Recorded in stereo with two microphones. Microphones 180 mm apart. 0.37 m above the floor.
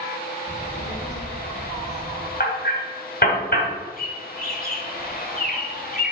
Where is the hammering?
60° left (ahead or behind), 2 m.